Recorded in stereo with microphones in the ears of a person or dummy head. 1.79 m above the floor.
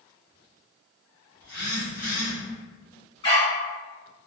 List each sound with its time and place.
1.4 s a phone buzzing: 15° left (ahead or behind), 1.0 m
3.2 s a dog barking: 25° left (ahead or behind), 1.6 m